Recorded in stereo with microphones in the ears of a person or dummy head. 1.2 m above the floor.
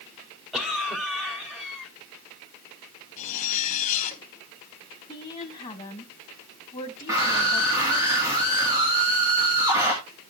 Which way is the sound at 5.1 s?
20° left (ahead or behind).